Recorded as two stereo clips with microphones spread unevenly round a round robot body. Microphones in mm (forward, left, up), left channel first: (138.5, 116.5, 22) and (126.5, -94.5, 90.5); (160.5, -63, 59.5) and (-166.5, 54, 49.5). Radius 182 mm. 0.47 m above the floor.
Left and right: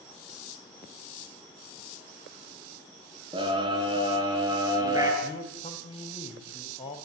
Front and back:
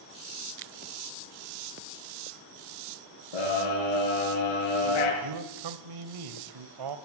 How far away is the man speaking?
About 2.5 m.